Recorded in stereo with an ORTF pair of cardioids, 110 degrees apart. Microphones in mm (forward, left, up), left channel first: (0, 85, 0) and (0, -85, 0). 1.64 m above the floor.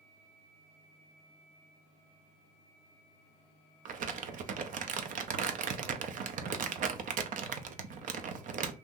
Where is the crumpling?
50° right, 0.6 m.